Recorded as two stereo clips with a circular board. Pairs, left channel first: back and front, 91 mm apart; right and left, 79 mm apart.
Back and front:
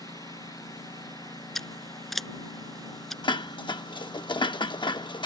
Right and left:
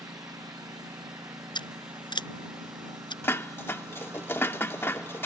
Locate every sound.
0.0 s a lawn mower: 130° left; by 5.3 s 140° left
1.6 s scissors: 95° right
3.2 s dishes clattering: 150° right